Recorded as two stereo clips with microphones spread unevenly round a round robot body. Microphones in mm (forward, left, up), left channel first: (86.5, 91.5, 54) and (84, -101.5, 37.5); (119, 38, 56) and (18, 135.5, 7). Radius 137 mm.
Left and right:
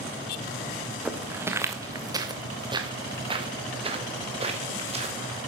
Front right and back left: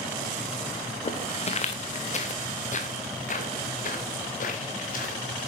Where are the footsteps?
5° right, 1.7 m; by 5.2 s 35° right, 3.5 m.